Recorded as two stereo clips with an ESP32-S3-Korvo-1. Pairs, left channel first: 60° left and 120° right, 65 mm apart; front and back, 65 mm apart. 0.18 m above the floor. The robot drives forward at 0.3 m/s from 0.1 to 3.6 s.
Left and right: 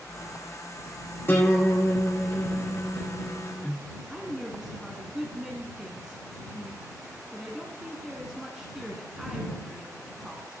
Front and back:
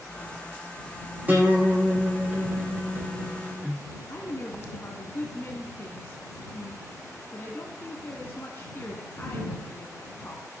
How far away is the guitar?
About 5 m.